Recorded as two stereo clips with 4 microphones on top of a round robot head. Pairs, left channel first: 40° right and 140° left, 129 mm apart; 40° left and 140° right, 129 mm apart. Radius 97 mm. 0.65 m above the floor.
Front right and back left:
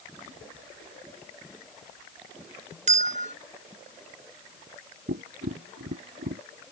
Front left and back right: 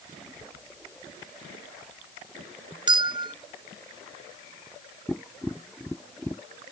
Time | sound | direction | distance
2.9 | a bell | 165° left | ?
5.1 | tapping | 125° left | ?